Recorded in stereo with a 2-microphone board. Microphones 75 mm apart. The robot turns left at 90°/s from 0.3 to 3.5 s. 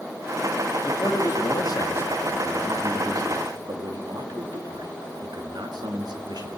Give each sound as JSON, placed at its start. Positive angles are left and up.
{"t": 0.8, "sound": "a man speaking", "azimuth_deg": 145, "distance_m": 2.0}